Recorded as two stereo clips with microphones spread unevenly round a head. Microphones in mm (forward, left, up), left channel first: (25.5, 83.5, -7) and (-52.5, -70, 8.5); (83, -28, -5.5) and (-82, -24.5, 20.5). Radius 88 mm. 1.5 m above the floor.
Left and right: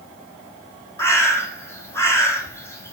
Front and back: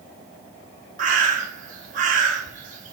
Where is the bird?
140° left, 1.6 m.